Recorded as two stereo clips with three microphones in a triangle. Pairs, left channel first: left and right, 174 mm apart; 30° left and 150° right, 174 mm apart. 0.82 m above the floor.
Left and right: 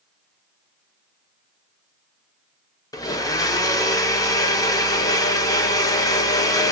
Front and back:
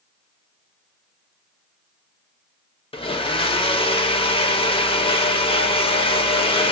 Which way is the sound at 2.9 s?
40° left.